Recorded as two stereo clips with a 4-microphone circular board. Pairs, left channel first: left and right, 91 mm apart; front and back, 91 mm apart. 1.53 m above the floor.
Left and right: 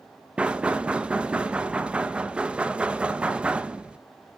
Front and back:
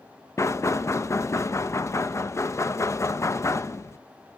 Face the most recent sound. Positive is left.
turn(degrees=-20)